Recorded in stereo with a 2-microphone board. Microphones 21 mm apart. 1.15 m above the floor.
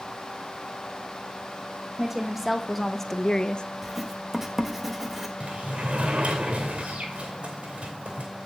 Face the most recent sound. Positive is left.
turn(degrees=-65)  # may be behind; listen again after turning